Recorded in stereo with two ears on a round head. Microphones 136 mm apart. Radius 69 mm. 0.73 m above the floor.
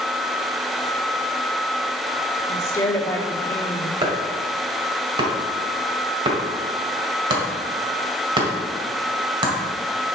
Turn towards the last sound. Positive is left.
turn(degrees=-30)  # may be behind; listen again after turning